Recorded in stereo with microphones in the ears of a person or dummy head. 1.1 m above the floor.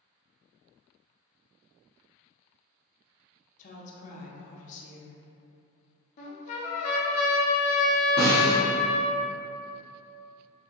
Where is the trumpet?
45° left (ahead or behind), 0.6 m.